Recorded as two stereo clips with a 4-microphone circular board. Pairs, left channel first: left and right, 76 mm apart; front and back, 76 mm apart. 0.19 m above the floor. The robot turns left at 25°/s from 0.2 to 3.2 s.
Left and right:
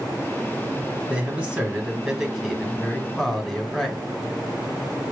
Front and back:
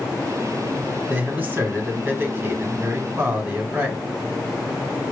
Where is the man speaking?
140° right, 1.4 m; by 4.0 s 170° left, 1.4 m.